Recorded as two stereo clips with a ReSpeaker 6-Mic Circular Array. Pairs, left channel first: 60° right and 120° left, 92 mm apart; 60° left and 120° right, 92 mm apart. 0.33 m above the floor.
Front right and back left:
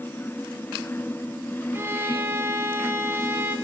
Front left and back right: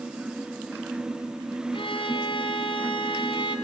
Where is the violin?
55° left, 2.5 m.